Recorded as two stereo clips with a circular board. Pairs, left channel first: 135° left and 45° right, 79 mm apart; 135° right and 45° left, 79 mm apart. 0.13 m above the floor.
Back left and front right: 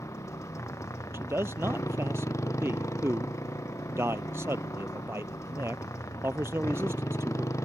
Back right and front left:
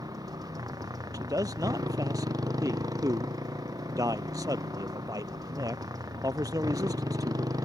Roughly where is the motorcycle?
Left.